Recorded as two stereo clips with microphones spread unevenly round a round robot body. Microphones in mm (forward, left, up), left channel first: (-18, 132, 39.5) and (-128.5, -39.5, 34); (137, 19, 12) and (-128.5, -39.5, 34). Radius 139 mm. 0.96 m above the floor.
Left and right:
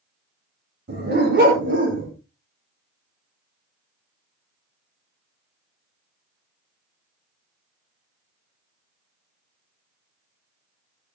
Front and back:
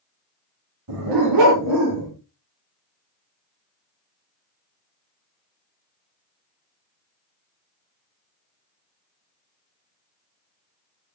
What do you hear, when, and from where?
0.9 s a dog barking: 160° right, 10 m; by 2.1 s 150° right, 9 m